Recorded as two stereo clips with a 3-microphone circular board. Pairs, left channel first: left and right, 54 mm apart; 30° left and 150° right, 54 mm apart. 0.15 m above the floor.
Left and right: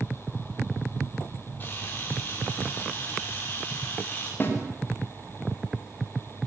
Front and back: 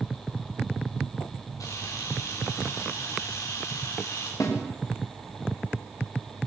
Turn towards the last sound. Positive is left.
turn(degrees=40)